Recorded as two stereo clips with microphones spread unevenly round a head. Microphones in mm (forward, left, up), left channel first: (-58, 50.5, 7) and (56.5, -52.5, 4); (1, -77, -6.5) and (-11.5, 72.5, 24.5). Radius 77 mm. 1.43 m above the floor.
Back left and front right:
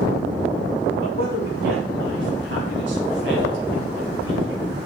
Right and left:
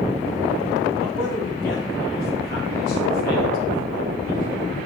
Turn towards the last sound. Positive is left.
turn(degrees=-50)